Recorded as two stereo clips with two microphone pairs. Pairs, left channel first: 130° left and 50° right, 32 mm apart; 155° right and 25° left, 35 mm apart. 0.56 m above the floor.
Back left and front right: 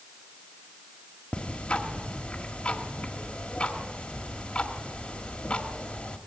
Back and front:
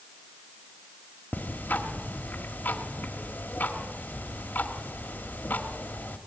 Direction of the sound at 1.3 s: Straight behind.